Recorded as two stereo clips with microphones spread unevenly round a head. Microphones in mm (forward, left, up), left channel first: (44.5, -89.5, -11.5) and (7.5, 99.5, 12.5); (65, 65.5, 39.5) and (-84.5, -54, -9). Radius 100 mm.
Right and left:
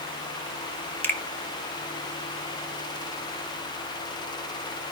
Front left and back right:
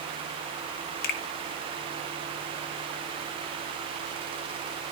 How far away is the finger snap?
About 1.3 m.